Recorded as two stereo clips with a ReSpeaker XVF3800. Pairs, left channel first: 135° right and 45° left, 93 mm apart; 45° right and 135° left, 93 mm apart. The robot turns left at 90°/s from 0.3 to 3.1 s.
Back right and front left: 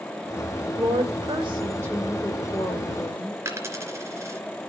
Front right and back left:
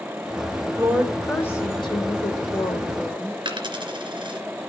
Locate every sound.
0.8 s a woman speaking: 80° left, 3 m; by 3.4 s 130° right, 3 m
3.5 s a dropped coin: 105° left, 2.5 m